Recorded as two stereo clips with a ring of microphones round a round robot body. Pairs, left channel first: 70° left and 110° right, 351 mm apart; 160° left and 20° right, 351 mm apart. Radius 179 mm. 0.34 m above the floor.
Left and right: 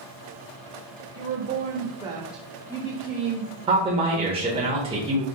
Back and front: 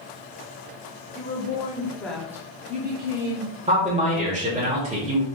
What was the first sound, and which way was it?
A woman speaking, 150° right.